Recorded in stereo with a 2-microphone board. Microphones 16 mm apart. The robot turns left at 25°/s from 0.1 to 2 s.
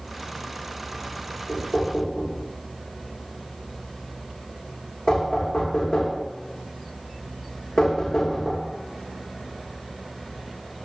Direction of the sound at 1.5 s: 45° left (ahead or behind).